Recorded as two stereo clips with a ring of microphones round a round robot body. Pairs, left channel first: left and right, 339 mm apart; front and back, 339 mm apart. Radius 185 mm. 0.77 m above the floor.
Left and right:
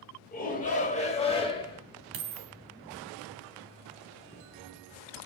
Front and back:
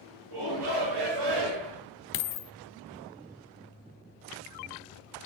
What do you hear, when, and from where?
0.3 s a shout: 155° left, 4.5 m; by 1.8 s 165° left, 4.5 m
2.1 s a dropped coin: 35° right, 0.8 m